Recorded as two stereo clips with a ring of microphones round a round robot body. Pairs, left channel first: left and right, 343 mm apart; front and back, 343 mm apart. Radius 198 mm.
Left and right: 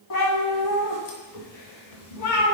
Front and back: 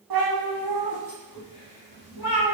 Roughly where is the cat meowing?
Behind left.